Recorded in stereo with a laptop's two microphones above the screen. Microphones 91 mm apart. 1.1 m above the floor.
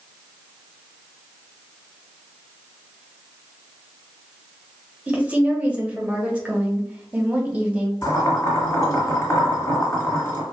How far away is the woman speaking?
About 1.0 m.